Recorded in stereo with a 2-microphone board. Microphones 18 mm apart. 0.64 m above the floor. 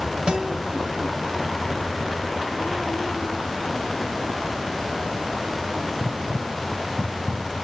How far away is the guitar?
About 1.2 m.